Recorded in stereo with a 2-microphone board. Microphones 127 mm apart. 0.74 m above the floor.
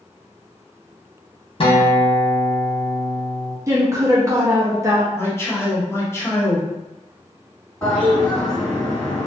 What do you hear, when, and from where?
1.6 s a guitar: 45° left (ahead or behind), 0.6 m
3.7 s a woman speaking: 25° right (ahead or behind), 0.6 m
5.1 s a man speaking: 20° left (ahead or behind), 0.8 m
7.8 s a toilet flushing: 20° left (ahead or behind), 1.7 m